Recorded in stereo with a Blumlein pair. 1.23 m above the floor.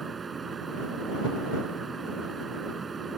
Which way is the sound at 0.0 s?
15° right.